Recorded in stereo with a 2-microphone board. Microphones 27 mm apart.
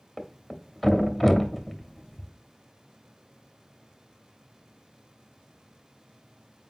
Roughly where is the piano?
I don't hear a piano.